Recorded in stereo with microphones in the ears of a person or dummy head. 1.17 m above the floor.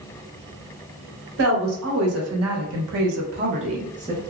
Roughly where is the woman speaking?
Right.